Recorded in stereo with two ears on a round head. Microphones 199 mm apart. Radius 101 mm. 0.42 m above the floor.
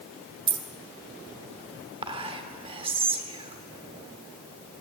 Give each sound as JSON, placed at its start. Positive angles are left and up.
{"t": 0.5, "sound": "keys jangling", "side_deg": -20, "distance_m": 0.8}
{"t": 2.0, "sound": "whispering", "side_deg": -25, "distance_m": 1.0}